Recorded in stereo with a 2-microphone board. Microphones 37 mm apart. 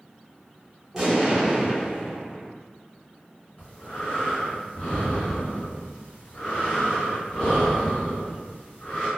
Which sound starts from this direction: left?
Breathing, at 3.6 s.